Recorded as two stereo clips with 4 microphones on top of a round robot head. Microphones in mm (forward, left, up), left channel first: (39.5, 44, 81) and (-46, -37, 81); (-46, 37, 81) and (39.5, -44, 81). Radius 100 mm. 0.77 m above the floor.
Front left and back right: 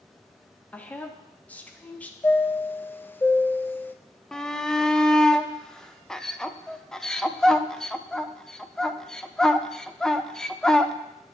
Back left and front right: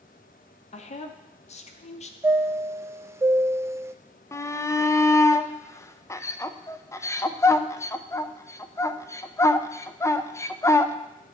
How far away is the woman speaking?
About 0.9 m.